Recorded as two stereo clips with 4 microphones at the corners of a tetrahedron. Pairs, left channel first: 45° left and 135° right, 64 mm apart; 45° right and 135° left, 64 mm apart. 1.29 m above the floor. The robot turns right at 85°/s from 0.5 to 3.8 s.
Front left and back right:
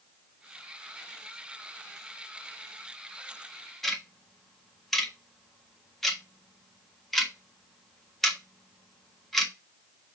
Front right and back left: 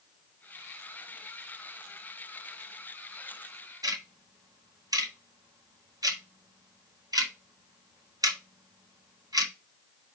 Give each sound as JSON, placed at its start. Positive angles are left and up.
{"t": 3.8, "sound": "ticking", "azimuth_deg": 130, "distance_m": 1.5}